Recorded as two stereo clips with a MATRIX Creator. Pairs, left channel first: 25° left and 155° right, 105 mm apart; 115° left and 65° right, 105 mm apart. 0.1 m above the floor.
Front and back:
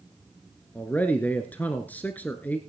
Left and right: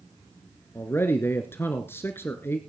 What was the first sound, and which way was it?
A man speaking, 75° left.